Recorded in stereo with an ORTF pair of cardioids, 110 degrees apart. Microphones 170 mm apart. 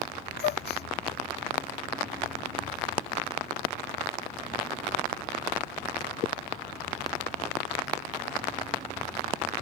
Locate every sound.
0.4 s a gasp: 65° left